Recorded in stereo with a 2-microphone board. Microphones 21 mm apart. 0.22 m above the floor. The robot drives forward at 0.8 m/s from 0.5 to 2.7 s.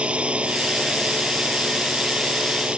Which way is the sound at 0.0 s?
70° right (ahead or behind).